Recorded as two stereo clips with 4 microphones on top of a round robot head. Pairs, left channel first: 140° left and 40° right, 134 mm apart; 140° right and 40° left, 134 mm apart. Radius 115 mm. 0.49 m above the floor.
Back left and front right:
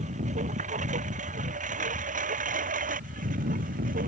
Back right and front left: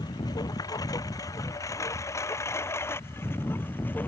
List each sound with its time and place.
0.0 s a lawn mower: 75° right; by 4.1 s 60° right